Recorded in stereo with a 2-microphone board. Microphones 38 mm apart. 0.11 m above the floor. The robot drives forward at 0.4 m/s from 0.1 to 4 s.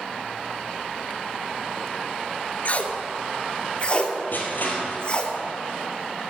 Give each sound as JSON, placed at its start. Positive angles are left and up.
{"t": 2.6, "sound": "tape being pulled", "side_deg": 45, "distance_m": 0.8}
{"t": 4.3, "sound": "crushing", "side_deg": 60, "distance_m": 2.0}